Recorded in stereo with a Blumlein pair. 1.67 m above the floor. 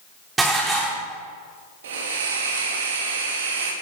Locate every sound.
0.4 s dishes clattering: 10° right, 3.5 m
1.8 s a hiss: 60° right, 2.5 m